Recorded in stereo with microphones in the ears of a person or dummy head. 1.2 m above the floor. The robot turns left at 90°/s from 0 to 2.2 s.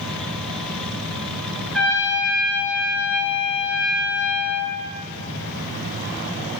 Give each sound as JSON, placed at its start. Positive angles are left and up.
{"t": 1.7, "sound": "a trumpet", "azimuth_deg": 180, "distance_m": 3.5}